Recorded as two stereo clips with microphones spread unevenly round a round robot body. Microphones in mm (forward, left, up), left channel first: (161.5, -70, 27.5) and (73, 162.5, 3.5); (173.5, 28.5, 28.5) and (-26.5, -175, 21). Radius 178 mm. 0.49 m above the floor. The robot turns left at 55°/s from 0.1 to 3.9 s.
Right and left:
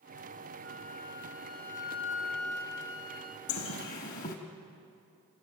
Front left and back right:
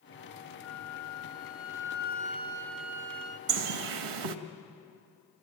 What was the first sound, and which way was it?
A flute, 75° left.